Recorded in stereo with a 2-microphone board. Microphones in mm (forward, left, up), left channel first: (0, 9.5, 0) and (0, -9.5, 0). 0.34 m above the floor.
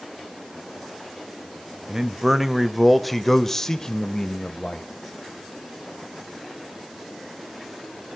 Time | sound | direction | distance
1.9 | a man speaking | 25° right (ahead or behind) | 1.2 m